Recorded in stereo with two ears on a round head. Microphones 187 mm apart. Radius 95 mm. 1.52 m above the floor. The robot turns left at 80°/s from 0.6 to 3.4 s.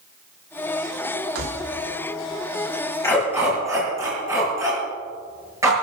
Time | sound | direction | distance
1.4 | keys jangling | 75° right (ahead or behind) | 2.5 m
3.0 | a dog barking | 15° left (ahead or behind) | 7.5 m